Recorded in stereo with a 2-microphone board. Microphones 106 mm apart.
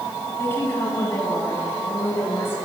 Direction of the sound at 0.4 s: 20° left (ahead or behind).